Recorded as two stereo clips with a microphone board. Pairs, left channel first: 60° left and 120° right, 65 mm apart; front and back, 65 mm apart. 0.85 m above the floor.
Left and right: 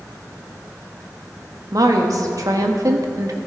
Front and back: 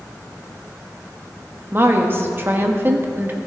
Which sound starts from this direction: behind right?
A woman speaking, at 1.7 s.